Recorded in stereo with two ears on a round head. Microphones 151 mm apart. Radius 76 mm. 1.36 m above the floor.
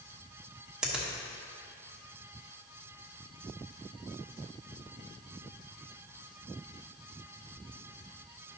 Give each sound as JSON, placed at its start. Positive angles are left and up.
{"t": 0.8, "sound": "a finger snap", "side_deg": -5, "distance_m": 1.1}